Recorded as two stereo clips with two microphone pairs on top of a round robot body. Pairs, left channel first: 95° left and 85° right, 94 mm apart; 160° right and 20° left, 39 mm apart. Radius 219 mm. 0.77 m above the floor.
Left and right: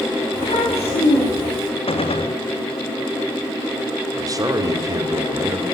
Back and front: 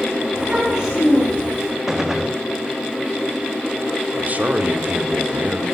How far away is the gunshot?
About 2.0 m.